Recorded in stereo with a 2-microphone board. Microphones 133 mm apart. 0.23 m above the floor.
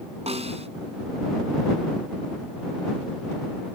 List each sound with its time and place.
0.3 s a snare drum: 55° right (ahead or behind)